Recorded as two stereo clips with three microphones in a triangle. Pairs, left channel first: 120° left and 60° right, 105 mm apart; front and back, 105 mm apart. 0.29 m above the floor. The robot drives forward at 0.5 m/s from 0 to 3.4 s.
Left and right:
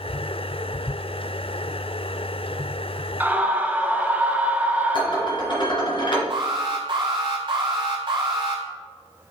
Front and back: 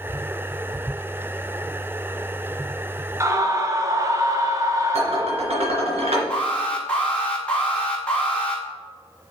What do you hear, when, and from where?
3.2 s a scream: 125° right, 1.3 m; by 5.6 s 130° right, 1.4 m
4.9 s dishes clattering: 160° left, 2.5 m
6.3 s an alarm: 75° right, 3 m